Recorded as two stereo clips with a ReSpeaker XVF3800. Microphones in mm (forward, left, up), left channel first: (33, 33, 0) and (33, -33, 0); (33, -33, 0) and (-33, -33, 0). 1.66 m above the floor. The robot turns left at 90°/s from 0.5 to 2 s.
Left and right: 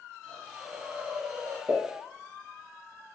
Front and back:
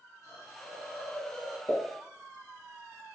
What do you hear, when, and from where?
0.2 s a hiss: 5° left, 1.5 m; by 1.6 s 95° right, 1.5 m
1.7 s a pop: 35° right, 1.0 m; by 1.8 s 45° right, 1.0 m